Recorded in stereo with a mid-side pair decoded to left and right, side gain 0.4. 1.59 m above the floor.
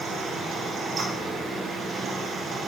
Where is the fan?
60° right, 1.6 m.